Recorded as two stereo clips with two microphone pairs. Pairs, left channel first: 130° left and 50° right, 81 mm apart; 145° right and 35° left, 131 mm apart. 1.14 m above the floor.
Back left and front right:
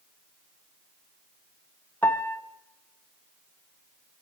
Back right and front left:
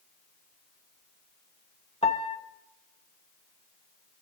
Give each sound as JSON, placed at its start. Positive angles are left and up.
{"t": 2.0, "sound": "a piano", "azimuth_deg": -170, "distance_m": 1.2}